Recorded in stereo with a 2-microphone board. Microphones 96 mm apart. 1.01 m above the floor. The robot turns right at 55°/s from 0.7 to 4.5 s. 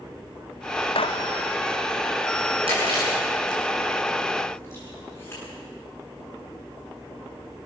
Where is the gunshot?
70° left (ahead or behind), 0.7 m; by 1.3 s 75° left (ahead or behind), 0.7 m.